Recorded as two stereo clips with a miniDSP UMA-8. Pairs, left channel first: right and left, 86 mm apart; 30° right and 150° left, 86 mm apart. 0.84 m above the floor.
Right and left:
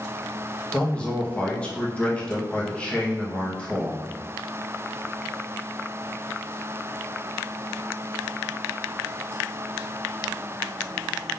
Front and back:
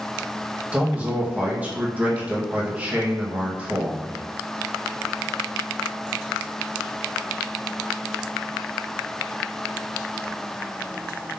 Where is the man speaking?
155° right, 1.0 m.